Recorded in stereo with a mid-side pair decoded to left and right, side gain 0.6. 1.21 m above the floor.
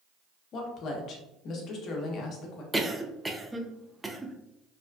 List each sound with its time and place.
0.5 s a woman speaking: 55° left, 0.8 m
2.7 s a cough: 10° right, 0.5 m